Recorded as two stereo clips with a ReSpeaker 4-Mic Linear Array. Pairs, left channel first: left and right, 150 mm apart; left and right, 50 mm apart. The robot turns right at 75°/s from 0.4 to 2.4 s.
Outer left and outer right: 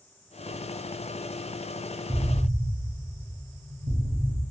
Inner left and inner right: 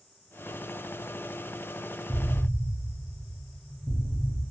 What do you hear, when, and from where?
2.1 s an explosion: 35° right (ahead or behind), 0.7 m; by 4.4 s 45° right (ahead or behind), 0.7 m